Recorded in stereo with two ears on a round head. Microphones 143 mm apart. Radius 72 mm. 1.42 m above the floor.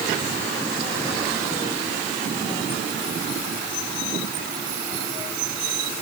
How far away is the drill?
No drill in this recording.